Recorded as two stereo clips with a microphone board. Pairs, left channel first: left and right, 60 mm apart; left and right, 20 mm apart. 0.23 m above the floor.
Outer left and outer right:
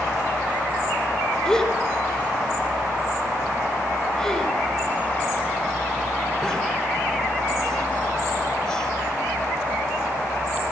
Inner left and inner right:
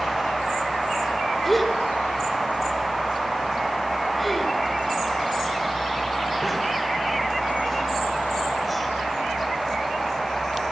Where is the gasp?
10° left (ahead or behind), 3.5 m.